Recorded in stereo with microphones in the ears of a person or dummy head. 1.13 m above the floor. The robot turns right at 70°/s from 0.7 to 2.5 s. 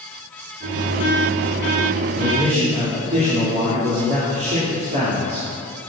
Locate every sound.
2.2 s a man speaking: 10° right (ahead or behind), 3 m; by 5.5 s 35° right (ahead or behind), 3 m